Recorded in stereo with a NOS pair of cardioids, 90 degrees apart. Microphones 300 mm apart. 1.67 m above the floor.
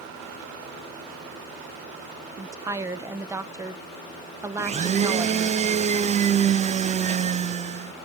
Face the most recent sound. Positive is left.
turn(degrees=-25)